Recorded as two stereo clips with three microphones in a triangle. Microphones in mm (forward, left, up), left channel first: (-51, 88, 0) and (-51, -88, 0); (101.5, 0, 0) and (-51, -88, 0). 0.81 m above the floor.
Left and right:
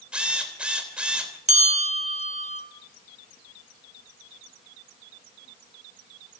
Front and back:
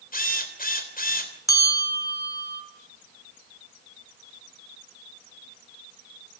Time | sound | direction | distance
0.1 | a drill | 5° right | 3 m
1.5 | a bell | 40° right | 3.5 m